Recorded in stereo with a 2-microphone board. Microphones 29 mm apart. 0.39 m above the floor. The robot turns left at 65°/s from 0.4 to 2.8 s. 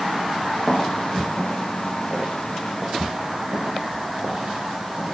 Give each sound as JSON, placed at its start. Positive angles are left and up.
{"t": 0.7, "sound": "footsteps", "side_deg": -10, "distance_m": 2.0}